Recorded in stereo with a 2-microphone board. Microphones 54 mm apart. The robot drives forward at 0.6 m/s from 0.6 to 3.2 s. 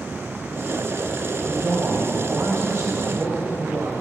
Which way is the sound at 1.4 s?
60° right (ahead or behind).